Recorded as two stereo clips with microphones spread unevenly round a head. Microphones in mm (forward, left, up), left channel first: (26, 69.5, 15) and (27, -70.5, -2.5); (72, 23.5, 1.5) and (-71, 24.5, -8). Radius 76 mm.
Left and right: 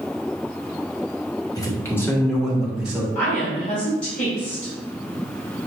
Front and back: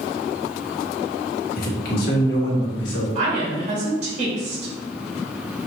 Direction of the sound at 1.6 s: 25° left.